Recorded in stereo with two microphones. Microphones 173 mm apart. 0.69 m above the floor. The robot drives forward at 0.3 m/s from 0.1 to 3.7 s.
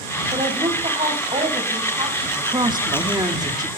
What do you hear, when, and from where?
0.3 s a woman speaking: 35° right (ahead or behind), 4 m; by 2.3 s 30° right (ahead or behind), 4.5 m
2.4 s a woman speaking: 25° right (ahead or behind), 1.4 m; by 3.7 s 20° right (ahead or behind), 1.7 m